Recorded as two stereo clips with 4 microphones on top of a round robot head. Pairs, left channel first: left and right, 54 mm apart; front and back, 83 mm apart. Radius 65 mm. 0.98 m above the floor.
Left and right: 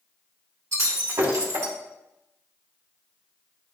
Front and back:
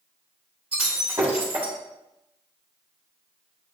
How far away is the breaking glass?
About 3 m.